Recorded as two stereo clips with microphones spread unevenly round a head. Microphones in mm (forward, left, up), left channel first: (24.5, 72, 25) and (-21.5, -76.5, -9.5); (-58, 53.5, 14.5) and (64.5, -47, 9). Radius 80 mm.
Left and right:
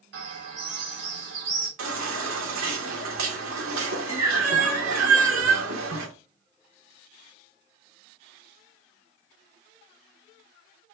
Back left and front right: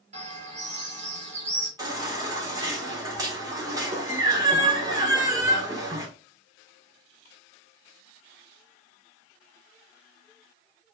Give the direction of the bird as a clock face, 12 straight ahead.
3 o'clock.